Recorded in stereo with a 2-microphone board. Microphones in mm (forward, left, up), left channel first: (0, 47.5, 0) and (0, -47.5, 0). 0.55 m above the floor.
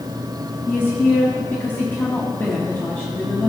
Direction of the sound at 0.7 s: 25° left (ahead or behind).